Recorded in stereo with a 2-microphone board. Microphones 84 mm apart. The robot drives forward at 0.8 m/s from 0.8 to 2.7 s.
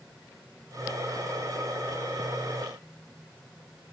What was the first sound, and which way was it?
Only background noise.